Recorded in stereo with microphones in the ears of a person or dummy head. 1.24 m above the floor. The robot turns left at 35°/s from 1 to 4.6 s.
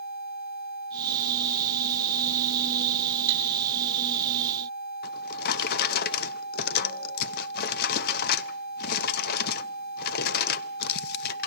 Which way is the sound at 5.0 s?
60° left (ahead or behind).